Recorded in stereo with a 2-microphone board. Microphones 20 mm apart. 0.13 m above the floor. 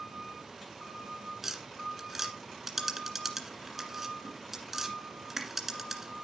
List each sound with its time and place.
1.4 s tapping: 15° right (ahead or behind), 1.7 m